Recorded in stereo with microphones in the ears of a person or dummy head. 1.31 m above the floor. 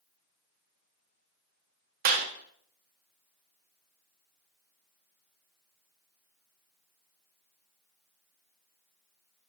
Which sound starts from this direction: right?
A clap, at 2.0 s.